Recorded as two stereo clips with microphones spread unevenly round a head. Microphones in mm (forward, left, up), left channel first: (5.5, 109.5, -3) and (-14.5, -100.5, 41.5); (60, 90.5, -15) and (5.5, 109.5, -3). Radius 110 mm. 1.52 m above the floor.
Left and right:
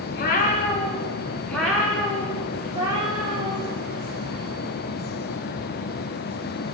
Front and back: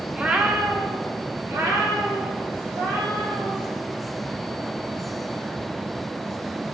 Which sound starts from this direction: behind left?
A cat meowing, at 0.1 s.